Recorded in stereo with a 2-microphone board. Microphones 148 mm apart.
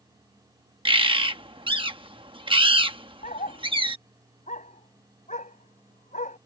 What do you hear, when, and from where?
0.8 s a bird: 35° right (ahead or behind)
3.2 s a dog barking: 60° left (ahead or behind)